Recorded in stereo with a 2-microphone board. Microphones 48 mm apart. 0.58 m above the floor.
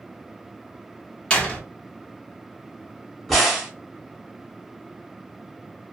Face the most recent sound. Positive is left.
turn(degrees=5)  # may be behind; listen again after turning